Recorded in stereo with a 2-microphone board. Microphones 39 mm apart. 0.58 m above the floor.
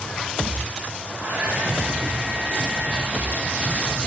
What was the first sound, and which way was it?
A hair dryer, 50° right (ahead or behind).